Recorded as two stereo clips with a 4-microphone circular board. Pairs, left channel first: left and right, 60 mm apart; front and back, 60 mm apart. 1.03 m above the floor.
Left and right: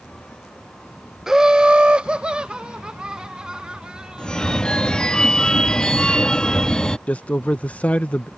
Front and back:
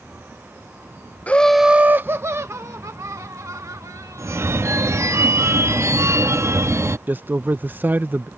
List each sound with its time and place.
1.3 s laughter: 20° right; by 4.7 s 165° right
4.2 s a phone ringing: 165° left
7.1 s a man speaking: 145° left